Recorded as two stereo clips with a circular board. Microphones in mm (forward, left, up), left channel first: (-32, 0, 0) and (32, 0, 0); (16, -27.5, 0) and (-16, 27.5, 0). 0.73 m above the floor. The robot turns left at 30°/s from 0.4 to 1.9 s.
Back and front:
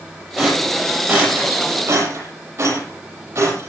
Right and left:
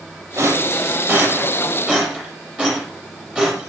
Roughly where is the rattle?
Left.